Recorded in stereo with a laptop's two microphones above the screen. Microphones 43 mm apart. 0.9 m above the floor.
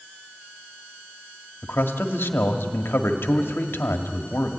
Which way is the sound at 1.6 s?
65° left (ahead or behind).